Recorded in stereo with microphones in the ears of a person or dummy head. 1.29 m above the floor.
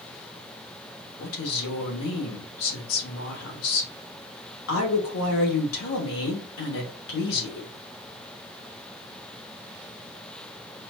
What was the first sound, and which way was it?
A woman speaking, 80° left.